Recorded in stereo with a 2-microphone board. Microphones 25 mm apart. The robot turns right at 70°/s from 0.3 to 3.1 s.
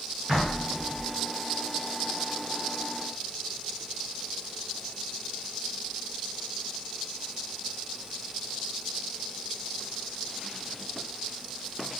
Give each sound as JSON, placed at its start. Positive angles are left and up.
{"t": 0.3, "sound": "knocking", "azimuth_deg": -50, "distance_m": 1.8}